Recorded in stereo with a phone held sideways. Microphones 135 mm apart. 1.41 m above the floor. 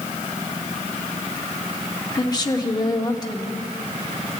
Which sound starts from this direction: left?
A woman speaking, at 2.1 s.